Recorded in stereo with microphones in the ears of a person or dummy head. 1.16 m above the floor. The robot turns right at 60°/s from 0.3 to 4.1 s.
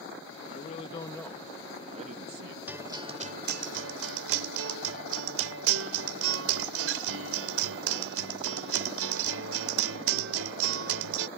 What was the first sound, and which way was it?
A man speaking, 125° left.